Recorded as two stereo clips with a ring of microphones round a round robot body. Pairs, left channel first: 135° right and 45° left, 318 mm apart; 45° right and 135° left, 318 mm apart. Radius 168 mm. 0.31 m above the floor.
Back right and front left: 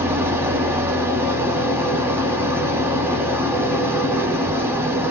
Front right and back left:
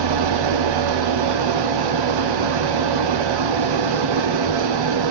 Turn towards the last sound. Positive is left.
turn(degrees=130)